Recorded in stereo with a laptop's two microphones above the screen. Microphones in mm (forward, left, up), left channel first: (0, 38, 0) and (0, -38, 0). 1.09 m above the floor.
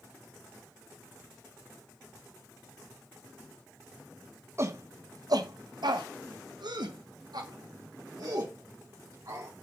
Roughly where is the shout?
Right.